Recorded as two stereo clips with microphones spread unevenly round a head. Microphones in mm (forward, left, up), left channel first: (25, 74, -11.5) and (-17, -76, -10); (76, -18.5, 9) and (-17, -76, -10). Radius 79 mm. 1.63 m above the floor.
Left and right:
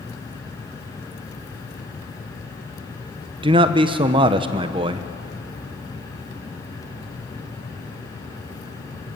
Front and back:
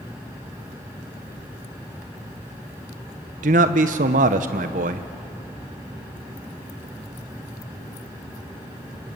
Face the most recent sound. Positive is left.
turn(degrees=-165)